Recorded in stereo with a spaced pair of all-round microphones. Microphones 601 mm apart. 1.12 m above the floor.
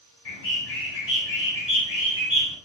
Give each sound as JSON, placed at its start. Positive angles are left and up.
{"t": 0.2, "sound": "a bird", "side_deg": 70, "distance_m": 4.5}